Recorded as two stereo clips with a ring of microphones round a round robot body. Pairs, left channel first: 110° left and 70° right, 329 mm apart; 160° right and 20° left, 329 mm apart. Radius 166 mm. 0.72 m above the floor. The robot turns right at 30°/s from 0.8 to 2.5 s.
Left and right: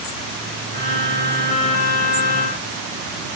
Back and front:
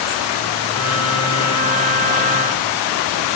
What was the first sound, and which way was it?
Only background noise.